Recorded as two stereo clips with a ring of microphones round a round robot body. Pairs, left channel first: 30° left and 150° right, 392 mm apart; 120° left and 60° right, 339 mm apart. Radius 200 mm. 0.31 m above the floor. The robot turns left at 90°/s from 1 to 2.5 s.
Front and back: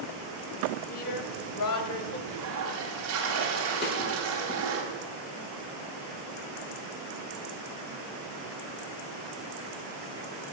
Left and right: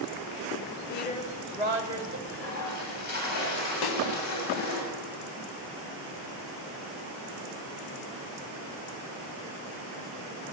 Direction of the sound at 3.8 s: 95° left.